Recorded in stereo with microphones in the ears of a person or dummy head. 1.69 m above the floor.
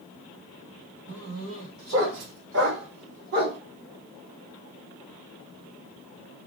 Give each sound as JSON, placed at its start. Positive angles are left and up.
{"t": 1.1, "sound": "a dog barking", "side_deg": -65, "distance_m": 3.5}